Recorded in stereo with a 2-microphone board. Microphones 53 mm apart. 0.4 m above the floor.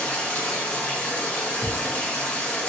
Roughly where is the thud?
Right.